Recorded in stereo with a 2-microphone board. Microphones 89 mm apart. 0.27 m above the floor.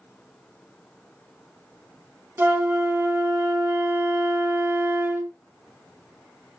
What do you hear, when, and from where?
2.4 s a flute: 25° right (ahead or behind), 0.7 m